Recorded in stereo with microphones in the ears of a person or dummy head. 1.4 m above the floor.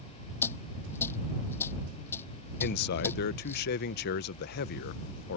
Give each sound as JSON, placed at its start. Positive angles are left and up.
{"t": 0.4, "sound": "a dropped coin", "side_deg": 15}
{"t": 2.6, "sound": "a man speaking", "side_deg": 55}